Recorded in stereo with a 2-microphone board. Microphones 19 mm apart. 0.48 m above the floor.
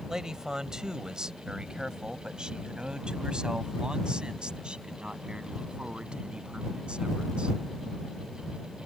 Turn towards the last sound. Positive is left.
turn(degrees=-75)  # may be behind; listen again after turning